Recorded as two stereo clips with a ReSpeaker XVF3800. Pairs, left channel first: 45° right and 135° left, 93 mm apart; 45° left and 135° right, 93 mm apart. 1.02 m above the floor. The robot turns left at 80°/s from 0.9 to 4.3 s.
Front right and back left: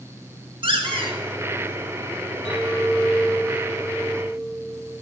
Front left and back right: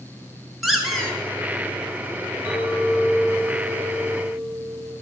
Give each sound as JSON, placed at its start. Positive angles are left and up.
{"t": 0.6, "sound": "a squeak", "azimuth_deg": 135, "distance_m": 2.0}
{"t": 2.5, "sound": "a clink", "azimuth_deg": -60, "distance_m": 5.0}